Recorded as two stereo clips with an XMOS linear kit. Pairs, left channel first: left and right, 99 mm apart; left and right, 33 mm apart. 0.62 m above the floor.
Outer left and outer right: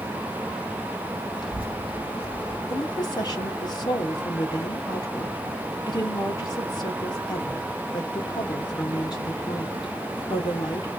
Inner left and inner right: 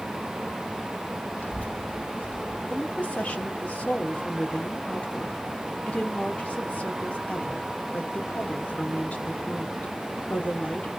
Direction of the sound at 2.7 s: 45° left (ahead or behind).